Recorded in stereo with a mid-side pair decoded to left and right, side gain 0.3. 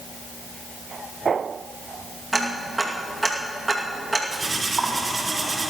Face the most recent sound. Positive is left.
turn(degrees=-40)